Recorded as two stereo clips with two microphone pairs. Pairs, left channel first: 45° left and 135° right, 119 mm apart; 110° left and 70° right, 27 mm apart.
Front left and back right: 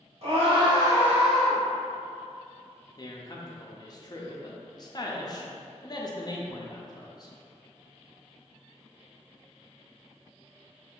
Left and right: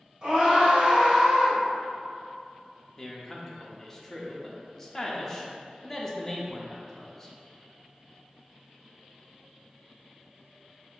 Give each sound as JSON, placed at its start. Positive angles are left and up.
{"t": 0.2, "sound": "a scream", "azimuth_deg": -125, "distance_m": 1.7}
{"t": 3.0, "sound": "a man speaking", "azimuth_deg": 40, "distance_m": 0.6}